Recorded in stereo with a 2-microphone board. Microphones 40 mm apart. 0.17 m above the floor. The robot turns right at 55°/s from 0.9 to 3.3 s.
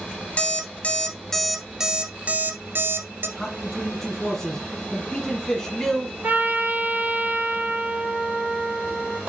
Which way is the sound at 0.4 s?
35° left (ahead or behind).